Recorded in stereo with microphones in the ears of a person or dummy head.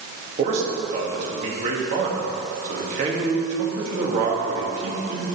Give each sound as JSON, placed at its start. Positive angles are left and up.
{"t": 0.4, "sound": "a man speaking", "side_deg": -40, "distance_m": 2.5}